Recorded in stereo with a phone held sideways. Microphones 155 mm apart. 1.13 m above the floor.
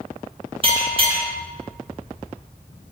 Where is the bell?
35° right (ahead or behind), 2 m.